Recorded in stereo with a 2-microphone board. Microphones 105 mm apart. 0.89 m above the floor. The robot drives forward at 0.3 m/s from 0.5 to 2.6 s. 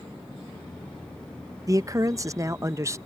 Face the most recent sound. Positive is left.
turn(degrees=-30)  # may be behind; listen again after turning